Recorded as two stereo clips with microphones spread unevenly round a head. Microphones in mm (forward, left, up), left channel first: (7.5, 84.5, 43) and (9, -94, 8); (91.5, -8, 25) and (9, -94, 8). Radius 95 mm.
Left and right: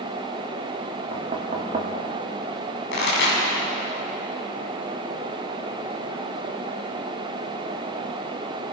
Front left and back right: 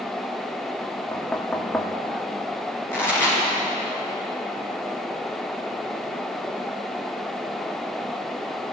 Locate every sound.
1.1 s knocking: 30° right, 2.5 m
2.9 s a pop: 125° left, 7 m